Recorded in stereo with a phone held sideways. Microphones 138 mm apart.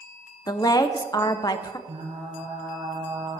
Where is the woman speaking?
30° left (ahead or behind), 0.7 m.